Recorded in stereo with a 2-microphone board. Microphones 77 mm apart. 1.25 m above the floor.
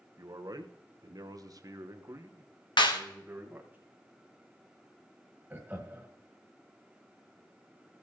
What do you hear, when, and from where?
0.2 s a man speaking: 50° right (ahead or behind), 1.1 m; by 3.8 s 25° right (ahead or behind), 1.7 m
2.8 s a clap: 75° left (ahead or behind), 1.2 m
5.5 s laughter: 20° right (ahead or behind), 1.7 m